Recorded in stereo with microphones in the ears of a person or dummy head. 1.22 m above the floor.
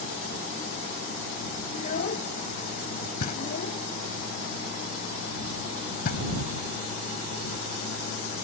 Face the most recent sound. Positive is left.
turn(degrees=50)  # may be behind; listen again after turning